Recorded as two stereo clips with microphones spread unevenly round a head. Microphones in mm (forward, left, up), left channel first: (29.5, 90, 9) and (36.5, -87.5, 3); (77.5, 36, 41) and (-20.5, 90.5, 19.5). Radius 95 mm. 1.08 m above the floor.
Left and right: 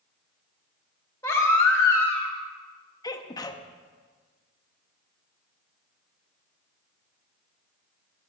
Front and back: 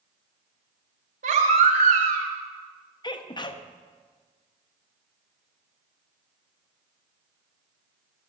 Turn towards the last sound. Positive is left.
turn(degrees=20)